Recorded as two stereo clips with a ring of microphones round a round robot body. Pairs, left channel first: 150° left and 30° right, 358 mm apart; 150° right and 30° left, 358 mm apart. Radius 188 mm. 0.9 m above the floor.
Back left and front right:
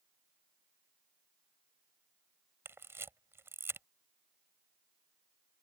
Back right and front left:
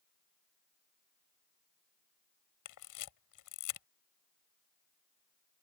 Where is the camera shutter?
115° right.